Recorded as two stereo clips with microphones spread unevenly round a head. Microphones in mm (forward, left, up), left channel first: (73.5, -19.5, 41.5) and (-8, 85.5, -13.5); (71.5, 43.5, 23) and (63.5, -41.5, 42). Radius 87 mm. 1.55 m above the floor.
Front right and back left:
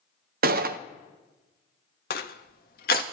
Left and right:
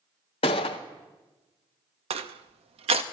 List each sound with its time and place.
0.4 s a gunshot: 115° left, 0.5 m
2.1 s crushing: 95° right, 0.6 m